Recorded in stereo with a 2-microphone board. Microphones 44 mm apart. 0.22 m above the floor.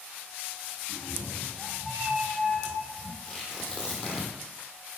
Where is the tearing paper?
20° left (ahead or behind), 2 m.